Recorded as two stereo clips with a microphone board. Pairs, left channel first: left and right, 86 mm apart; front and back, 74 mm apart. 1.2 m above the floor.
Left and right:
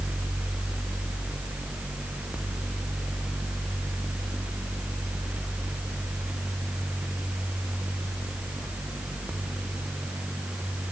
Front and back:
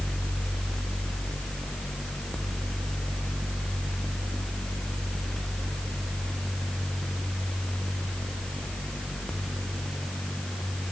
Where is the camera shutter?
No camera shutter in this recording.